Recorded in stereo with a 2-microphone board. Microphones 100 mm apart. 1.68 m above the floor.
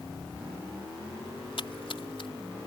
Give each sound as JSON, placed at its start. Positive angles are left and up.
{"t": 1.6, "sound": "a splash", "side_deg": 65}